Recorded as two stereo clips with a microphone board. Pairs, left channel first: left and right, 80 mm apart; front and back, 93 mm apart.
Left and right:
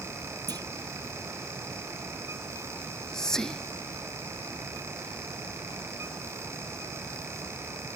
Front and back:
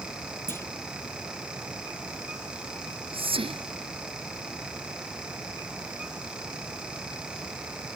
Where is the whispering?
175° left.